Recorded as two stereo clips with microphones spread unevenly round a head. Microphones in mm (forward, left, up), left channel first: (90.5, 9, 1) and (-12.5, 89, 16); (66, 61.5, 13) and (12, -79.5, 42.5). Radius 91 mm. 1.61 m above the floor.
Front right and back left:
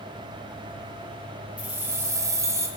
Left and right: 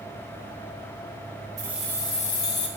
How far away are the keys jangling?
About 0.6 m.